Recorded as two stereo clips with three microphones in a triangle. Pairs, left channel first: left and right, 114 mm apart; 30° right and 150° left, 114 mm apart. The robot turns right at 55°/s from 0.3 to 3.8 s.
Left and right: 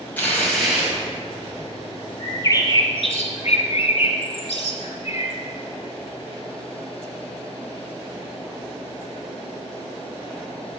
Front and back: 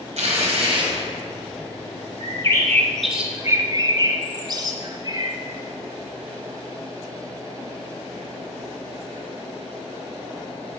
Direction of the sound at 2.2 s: 15° left.